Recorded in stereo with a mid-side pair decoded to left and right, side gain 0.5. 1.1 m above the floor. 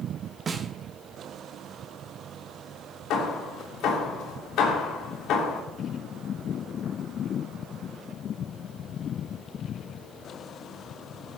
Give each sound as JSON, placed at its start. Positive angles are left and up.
{"t": 0.5, "sound": "a snare drum", "azimuth_deg": -35, "distance_m": 1.4}
{"t": 3.1, "sound": "hammering", "azimuth_deg": 70, "distance_m": 3.0}